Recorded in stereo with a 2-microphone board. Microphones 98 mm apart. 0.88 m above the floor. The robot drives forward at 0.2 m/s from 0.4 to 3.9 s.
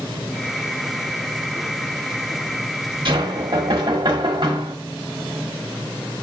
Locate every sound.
3.0 s knocking: 55° right (ahead or behind), 1.4 m; by 4.8 s 50° right (ahead or behind), 1.5 m